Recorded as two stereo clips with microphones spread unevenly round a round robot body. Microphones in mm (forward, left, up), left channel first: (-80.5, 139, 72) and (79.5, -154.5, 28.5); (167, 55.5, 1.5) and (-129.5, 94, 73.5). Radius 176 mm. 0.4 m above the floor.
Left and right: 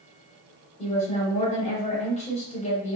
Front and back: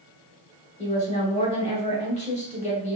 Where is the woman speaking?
45° left, 1.3 m.